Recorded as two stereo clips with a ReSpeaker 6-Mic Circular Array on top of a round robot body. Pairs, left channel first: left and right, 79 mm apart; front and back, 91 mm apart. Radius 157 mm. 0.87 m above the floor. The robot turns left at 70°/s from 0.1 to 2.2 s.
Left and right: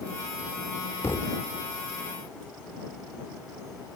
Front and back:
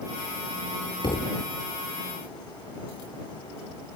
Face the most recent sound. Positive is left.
turn(degrees=-45)